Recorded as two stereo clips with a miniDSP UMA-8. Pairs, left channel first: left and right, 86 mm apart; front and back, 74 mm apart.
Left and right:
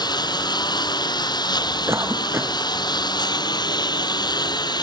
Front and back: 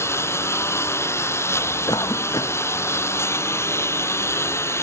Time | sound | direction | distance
0.0 | a lawn mower | 55° left | ?
1.9 | a cough | 30° right | ?